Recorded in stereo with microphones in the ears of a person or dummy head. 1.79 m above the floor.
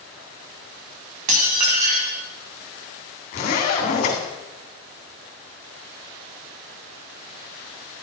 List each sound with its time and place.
1.3 s dishes clattering: 45° right (ahead or behind), 2 m
3.3 s a zipper: 40° left (ahead or behind), 3 m